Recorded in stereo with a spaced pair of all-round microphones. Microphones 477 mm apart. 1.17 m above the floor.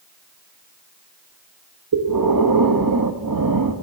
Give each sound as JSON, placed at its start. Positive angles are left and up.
{"t": 1.9, "sound": "breathing", "side_deg": -45, "distance_m": 0.7}